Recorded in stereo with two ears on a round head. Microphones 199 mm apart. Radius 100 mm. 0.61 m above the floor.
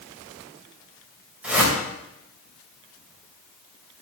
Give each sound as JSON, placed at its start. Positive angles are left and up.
{"t": 1.4, "sound": "a whoosh", "side_deg": -5, "distance_m": 2.5}